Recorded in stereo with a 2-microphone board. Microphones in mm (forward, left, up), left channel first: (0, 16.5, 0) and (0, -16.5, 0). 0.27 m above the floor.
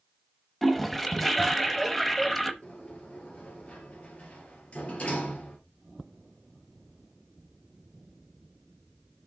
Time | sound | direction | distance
0.6 | a toilet flushing | 5° left (ahead or behind) | 0.8 m
2.6 | a sliding door | 40° left (ahead or behind) | 2.5 m